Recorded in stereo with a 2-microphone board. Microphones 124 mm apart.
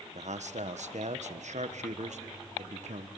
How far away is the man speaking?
About 1.2 m.